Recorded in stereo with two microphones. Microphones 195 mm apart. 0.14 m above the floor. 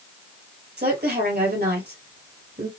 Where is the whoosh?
I don't hear a whoosh.